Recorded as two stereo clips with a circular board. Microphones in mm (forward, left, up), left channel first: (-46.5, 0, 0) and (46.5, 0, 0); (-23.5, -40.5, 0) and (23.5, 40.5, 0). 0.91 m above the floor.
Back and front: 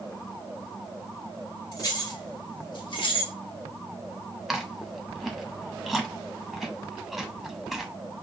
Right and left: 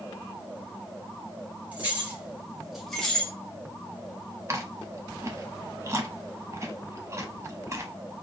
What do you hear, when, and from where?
1.7 s keys jangling: 130° left, 2.5 m; by 3.3 s 165° left, 1.1 m
4.5 s chewing: 85° left, 0.9 m